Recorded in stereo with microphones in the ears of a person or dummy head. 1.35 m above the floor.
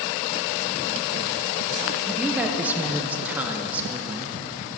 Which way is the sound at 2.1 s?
10° right (ahead or behind).